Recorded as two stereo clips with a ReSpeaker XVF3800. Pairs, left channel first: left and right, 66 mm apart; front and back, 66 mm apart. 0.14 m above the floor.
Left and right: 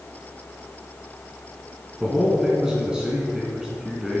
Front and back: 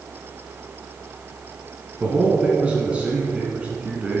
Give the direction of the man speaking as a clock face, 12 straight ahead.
5 o'clock.